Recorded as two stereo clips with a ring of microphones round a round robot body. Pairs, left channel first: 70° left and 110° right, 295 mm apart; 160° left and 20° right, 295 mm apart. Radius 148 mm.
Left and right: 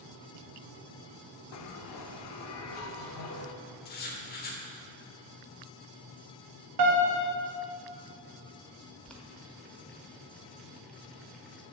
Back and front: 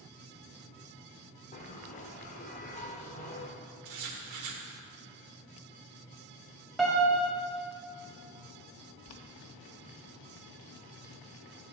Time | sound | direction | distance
1.5 | a bell | 95° left | 0.5 m
3.9 | writing | 10° left | 1.0 m
6.8 | a piano | 115° right | 1.2 m
9.1 | boiling | 155° left | 0.7 m